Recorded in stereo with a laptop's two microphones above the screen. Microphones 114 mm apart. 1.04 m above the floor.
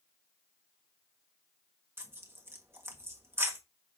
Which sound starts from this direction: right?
Tearing paper, at 2.0 s.